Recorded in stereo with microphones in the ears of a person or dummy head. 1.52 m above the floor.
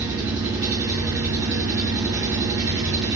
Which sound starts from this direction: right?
An engine running, at 0.0 s.